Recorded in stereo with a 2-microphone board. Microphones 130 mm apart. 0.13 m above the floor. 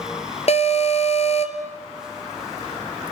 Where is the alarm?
55° left (ahead or behind), 1.8 m.